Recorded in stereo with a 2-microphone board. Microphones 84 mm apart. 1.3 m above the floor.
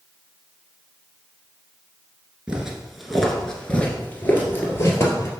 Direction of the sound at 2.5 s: 10° right (ahead or behind).